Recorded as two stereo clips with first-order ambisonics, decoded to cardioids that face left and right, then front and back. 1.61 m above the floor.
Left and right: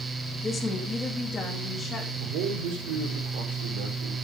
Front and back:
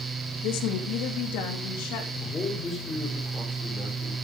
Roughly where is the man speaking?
Right.